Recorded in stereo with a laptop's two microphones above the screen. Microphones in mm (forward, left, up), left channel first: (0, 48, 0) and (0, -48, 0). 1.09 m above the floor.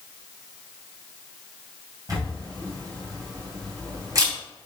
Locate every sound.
2.1 s a camera shutter: 40° right (ahead or behind), 3 m